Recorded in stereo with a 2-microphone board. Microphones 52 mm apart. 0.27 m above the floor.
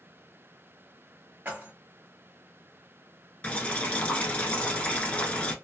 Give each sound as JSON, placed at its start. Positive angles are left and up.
{"t": 1.4, "sound": "keys jangling", "side_deg": -40, "distance_m": 1.0}
{"t": 3.4, "sound": "boiling", "side_deg": 25, "distance_m": 0.7}